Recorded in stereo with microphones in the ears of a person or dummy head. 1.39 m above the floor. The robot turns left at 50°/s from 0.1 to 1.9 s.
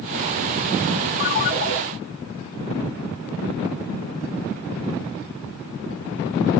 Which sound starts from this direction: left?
A ringtone, at 1.2 s.